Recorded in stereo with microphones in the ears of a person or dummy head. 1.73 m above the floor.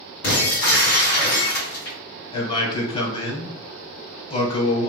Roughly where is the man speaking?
Left.